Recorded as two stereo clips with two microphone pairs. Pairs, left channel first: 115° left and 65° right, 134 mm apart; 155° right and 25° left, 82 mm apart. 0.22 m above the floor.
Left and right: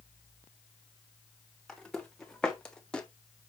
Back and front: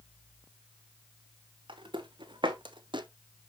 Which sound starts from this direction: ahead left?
Footsteps, at 1.7 s.